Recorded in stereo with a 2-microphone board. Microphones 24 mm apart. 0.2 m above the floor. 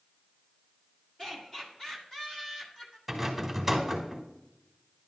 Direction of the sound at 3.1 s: 5° right (ahead or behind).